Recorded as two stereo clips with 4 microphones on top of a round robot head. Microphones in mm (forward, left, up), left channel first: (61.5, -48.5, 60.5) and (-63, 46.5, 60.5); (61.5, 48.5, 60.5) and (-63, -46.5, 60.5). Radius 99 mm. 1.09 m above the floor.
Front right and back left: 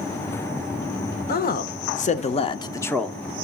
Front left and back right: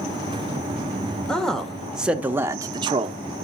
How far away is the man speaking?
About 1.3 m.